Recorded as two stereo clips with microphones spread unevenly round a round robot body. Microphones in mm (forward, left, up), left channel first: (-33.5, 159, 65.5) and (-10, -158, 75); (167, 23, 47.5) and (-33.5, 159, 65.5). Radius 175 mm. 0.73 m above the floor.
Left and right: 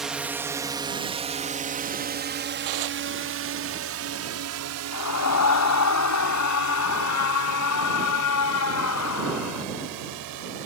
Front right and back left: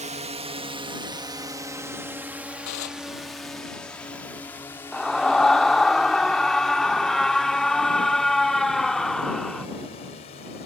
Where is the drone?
175° right; by 10.7 s 100° right.